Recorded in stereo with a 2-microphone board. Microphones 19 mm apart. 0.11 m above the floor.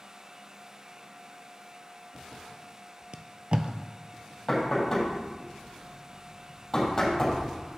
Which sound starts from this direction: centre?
Knocking, at 4.5 s.